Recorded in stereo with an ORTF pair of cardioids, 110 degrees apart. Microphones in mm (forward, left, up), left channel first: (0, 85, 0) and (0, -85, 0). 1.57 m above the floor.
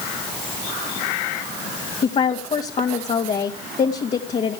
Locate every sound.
2.0 s a woman speaking: 40° left, 2.5 m